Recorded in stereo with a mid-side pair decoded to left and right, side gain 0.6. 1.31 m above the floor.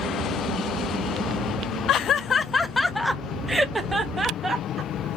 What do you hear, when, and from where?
1.9 s laughter: 60° left, 0.8 m; by 5.1 s 25° right, 1.8 m